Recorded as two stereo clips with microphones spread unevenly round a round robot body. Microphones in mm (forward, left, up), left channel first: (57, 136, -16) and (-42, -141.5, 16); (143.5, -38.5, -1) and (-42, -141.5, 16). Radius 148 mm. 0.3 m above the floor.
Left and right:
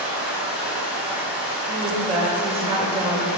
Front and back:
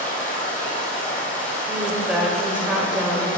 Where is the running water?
25° right, 2.5 m.